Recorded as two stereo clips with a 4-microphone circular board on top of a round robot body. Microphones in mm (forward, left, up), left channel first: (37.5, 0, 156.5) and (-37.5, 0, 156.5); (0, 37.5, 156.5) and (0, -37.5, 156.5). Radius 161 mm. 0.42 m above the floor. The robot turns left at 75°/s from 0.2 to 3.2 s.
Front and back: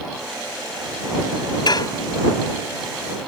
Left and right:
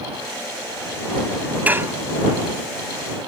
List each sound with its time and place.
1.7 s dishes clattering: 20° right; by 1.9 s 40° right